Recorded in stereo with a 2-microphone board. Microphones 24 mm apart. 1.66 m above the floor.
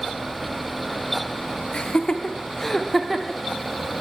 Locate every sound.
1.7 s laughter: 45° left (ahead or behind), 1.0 m; by 3.4 s 20° right (ahead or behind), 1.0 m